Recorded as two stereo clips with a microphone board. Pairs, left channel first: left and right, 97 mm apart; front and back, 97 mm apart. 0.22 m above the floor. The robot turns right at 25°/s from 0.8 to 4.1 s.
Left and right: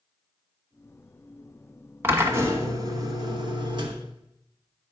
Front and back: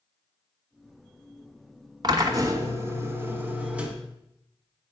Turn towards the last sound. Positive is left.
turn(degrees=-100)